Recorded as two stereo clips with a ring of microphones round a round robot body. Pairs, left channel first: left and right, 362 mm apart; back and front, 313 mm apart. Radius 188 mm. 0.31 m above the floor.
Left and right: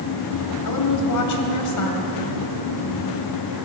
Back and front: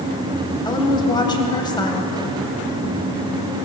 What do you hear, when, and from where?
0.7 s a woman speaking: 105° left, 2 m